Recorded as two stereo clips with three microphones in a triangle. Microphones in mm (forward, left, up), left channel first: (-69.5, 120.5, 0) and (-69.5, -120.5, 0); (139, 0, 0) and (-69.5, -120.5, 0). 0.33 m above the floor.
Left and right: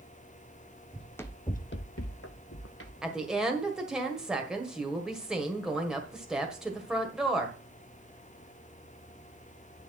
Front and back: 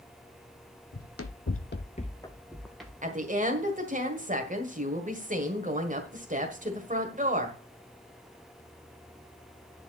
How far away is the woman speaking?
About 1.6 m.